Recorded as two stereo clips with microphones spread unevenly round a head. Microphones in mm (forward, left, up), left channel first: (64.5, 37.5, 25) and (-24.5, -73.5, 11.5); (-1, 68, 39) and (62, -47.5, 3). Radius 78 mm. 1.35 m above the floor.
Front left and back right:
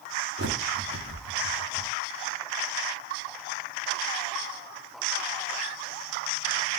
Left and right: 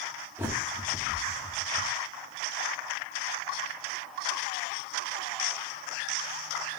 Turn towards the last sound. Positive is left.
turn(degrees=-145)